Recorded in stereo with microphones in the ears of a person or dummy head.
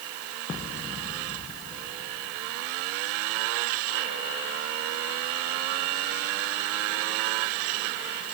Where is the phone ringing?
No phone ringing in this recording.